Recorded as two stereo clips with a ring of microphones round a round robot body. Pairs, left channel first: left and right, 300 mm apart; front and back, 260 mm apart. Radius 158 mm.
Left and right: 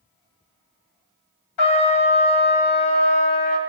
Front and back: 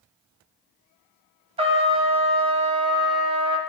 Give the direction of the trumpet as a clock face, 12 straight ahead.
8 o'clock.